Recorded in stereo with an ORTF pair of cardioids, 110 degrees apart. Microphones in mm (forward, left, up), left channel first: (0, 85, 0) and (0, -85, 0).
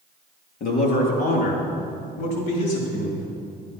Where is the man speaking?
60° left, 3.5 m; by 3.3 s 75° left, 5 m.